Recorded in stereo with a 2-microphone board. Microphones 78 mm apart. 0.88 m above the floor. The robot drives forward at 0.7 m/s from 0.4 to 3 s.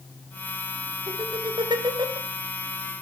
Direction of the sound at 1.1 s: 70° right (ahead or behind).